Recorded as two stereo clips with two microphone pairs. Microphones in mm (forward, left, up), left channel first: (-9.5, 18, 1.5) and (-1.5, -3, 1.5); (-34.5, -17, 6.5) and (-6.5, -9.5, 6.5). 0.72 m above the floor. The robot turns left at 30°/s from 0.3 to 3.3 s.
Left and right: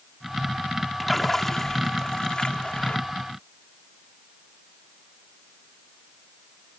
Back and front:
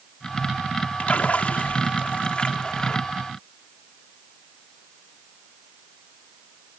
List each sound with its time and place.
1.0 s a splash: 160° right; by 3.0 s 140° left